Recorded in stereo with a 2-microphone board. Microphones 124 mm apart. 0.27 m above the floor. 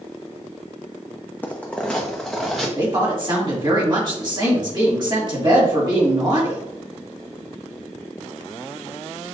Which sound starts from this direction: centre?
Footsteps, at 1.4 s.